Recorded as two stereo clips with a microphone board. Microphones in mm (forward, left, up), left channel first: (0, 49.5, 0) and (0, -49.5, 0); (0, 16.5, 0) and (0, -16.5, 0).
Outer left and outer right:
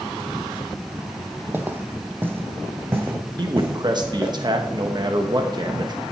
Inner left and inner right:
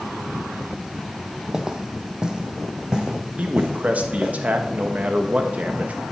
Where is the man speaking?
45° right (ahead or behind), 1.1 m.